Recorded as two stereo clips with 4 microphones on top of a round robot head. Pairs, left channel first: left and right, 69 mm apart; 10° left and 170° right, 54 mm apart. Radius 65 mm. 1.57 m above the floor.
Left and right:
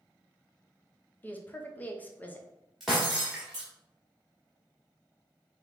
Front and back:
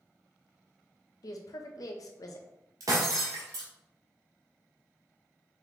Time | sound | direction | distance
1.2 | a woman speaking | 25° left | 0.9 m
2.8 | breaking glass | 175° right | 1.3 m